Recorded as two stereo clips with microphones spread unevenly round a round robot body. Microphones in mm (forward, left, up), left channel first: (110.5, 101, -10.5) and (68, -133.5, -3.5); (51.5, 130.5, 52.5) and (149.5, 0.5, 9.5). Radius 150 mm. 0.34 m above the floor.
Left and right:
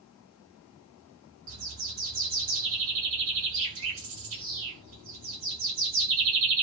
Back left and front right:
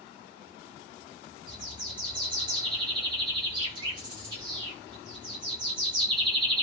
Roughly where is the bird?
Right.